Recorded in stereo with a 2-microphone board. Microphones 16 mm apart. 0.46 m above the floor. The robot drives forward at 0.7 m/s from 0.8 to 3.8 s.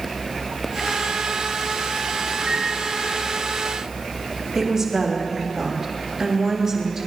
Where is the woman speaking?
30° right (ahead or behind), 3.5 m.